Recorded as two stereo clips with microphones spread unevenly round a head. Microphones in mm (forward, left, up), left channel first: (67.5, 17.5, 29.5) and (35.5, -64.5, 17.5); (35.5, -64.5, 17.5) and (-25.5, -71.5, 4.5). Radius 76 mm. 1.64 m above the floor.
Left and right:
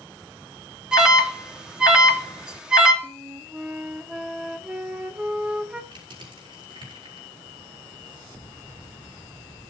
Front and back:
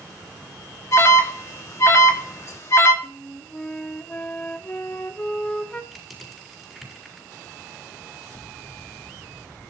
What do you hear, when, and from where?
0.9 s an alarm: 30° right, 3 m
3.0 s a flute: 25° right, 1.3 m
5.9 s crushing: 80° right, 7.5 m